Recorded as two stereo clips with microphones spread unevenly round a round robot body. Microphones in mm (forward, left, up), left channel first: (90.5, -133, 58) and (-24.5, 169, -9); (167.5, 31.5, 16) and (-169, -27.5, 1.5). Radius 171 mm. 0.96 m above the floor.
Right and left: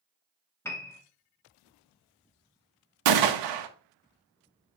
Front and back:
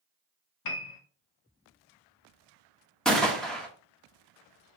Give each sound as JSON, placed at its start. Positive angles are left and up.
{"t": 0.7, "sound": "a piano", "azimuth_deg": 20, "distance_m": 0.9}
{"t": 3.0, "sound": "a gunshot", "azimuth_deg": 100, "distance_m": 0.8}